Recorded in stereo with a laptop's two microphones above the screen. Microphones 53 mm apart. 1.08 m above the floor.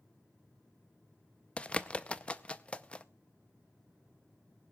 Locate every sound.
1.6 s a bird: 20° left (ahead or behind), 0.5 m